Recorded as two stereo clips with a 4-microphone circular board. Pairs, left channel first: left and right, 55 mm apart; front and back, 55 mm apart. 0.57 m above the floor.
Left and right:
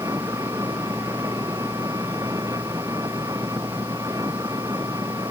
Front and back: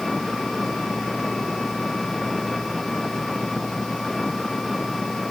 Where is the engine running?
85° right.